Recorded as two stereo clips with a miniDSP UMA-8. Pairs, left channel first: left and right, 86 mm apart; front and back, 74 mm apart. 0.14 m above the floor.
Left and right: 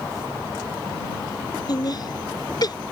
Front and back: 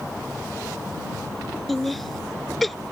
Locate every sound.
1.7 s laughter: 90° left